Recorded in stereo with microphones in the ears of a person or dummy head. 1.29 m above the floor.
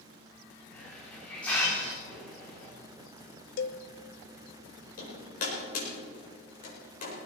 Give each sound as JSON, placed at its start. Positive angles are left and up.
{"t": 0.7, "sound": "a hiss", "side_deg": 15, "distance_m": 3.0}
{"t": 3.6, "sound": "a cowbell", "side_deg": 70, "distance_m": 0.7}
{"t": 5.0, "sound": "hammering", "side_deg": 50, "distance_m": 5.0}